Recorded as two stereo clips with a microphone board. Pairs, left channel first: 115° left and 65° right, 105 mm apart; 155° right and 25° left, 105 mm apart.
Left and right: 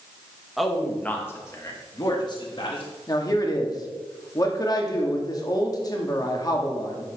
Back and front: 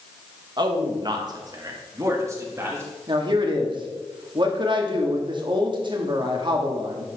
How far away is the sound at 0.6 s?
About 1.2 m.